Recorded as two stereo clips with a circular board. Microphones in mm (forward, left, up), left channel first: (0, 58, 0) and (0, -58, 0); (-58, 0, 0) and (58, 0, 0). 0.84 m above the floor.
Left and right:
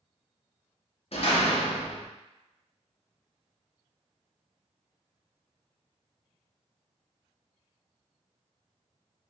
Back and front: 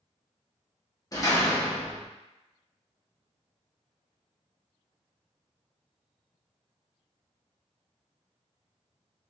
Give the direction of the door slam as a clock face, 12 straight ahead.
8 o'clock.